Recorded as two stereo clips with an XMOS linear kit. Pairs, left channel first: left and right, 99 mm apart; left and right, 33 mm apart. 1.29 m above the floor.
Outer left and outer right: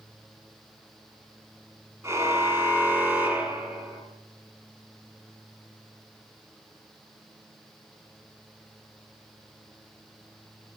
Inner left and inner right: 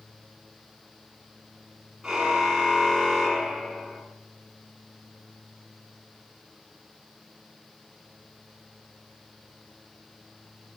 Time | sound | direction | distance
2.0 | a car horn | 25° right (ahead or behind) | 7 m